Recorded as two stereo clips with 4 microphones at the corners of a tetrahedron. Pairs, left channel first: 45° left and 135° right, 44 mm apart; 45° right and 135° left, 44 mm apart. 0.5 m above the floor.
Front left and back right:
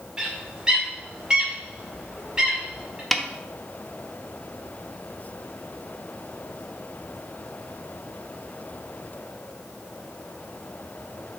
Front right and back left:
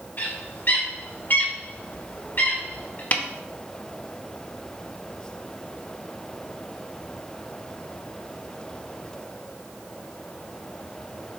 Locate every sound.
0.2 s a bird: 65° right, 1.8 m
3.1 s a snare drum: 40° right, 0.7 m